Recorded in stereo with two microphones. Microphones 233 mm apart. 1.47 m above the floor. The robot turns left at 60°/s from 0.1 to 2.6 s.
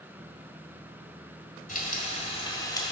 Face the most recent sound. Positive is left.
turn(degrees=25)